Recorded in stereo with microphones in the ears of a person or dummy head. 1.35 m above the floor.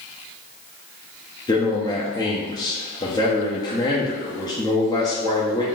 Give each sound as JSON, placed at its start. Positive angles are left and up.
{"t": 1.5, "sound": "a man speaking", "side_deg": 15, "distance_m": 0.6}